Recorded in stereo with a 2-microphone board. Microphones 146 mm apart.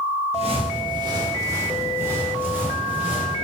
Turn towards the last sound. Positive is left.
turn(degrees=-10)  # may be behind; listen again after turning